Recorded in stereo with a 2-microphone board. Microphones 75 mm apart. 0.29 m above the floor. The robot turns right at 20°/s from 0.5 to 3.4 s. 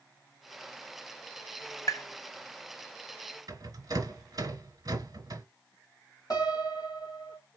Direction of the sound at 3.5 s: 55° right (ahead or behind).